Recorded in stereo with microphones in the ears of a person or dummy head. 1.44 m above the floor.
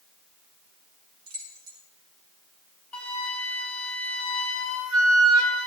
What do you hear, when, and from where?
1.3 s keys jangling: 75° right (ahead or behind), 4.5 m
2.9 s a flute: 10° left (ahead or behind), 3.5 m